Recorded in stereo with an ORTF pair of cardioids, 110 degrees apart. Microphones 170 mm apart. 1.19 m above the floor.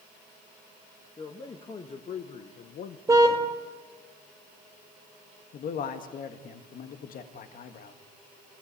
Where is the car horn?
20° right, 2.5 m.